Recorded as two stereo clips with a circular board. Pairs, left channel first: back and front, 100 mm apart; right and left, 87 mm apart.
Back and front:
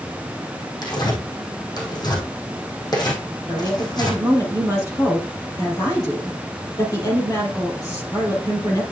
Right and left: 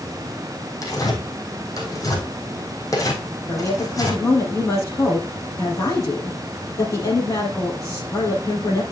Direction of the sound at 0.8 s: 135° right.